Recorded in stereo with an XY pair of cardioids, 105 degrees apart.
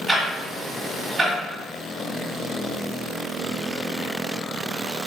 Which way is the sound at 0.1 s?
30° right.